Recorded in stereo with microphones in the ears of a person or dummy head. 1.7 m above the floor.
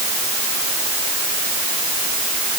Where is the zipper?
No zipper in this recording.